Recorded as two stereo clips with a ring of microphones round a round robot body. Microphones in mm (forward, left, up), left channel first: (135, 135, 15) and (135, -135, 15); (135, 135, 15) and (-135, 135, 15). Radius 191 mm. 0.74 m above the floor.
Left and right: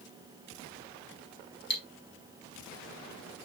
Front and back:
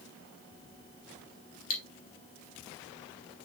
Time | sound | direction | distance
1.7 | cutlery clinking | 40° left | 2 m